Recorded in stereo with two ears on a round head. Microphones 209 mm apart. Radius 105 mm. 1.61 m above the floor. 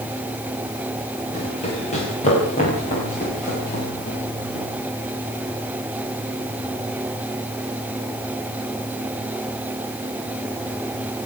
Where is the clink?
No clink in this recording.